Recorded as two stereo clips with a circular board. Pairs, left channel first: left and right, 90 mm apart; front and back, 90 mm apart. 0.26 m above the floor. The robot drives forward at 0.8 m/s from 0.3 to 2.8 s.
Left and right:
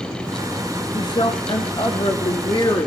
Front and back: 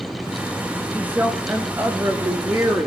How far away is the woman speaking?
About 4 m.